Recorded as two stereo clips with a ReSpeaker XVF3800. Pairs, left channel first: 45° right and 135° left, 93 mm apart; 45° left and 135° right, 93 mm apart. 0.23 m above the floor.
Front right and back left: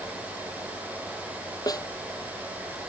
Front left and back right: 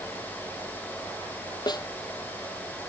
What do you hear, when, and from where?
1.7 s a snare drum: 5° left